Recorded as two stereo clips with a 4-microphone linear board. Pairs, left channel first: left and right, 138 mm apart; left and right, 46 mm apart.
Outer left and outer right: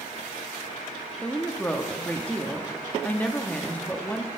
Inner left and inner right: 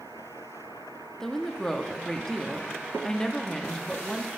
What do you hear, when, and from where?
1.2 s a woman speaking: 10° left (ahead or behind), 0.7 m